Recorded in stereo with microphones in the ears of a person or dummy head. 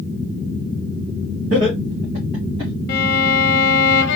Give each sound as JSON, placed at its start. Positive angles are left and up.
{"t": 1.5, "sound": "laughter", "side_deg": -65, "distance_m": 1.9}
{"t": 2.9, "sound": "a violin", "side_deg": 65, "distance_m": 0.7}